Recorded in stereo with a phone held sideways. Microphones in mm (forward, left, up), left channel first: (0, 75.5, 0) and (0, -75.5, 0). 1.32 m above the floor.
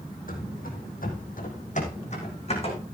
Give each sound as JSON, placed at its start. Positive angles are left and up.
{"t": 0.3, "sound": "running footsteps", "side_deg": 65, "distance_m": 3.5}